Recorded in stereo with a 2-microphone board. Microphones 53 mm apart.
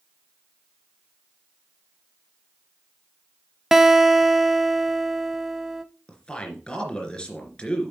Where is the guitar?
10° right (ahead or behind), 0.6 m.